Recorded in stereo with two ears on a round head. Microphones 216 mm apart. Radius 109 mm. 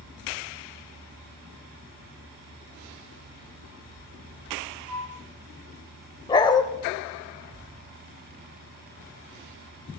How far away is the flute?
About 4.5 m.